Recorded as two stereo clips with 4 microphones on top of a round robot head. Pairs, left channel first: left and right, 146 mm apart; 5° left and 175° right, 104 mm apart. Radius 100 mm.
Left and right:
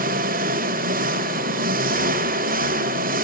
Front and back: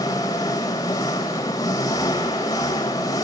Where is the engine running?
65° right, 1.1 m.